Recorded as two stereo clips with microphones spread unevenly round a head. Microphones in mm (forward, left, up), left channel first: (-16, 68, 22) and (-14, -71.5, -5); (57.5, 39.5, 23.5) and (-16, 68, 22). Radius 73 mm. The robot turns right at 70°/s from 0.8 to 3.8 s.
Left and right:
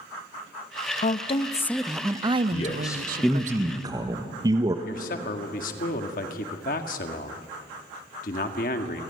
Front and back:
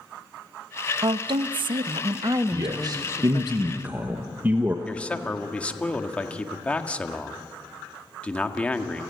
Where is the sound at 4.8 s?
55° left, 2 m.